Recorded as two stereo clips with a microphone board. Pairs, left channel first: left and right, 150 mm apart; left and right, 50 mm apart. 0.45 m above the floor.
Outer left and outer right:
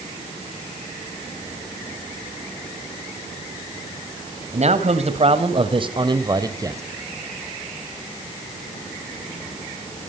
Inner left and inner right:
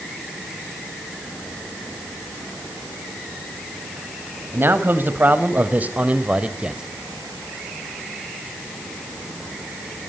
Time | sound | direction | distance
4.5 | a man speaking | 50° right (ahead or behind) | 3 m